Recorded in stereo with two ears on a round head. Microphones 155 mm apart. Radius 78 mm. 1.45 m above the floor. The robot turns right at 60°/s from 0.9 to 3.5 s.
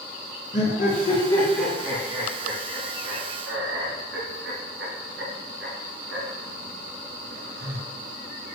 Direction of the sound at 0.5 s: 45° left (ahead or behind).